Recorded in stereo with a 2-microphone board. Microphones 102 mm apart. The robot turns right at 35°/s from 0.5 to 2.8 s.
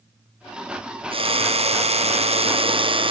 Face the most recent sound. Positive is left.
turn(degrees=-60)